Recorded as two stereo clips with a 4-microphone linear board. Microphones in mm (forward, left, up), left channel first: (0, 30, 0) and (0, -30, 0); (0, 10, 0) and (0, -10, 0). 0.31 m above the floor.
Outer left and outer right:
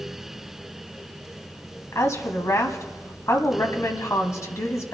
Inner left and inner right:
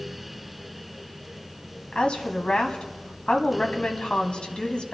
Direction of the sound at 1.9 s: 55° left (ahead or behind).